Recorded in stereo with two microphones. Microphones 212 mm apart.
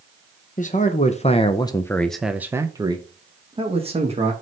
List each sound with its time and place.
0.6 s a man speaking: 35° left (ahead or behind), 0.9 m; by 4.3 s 30° right (ahead or behind), 1.5 m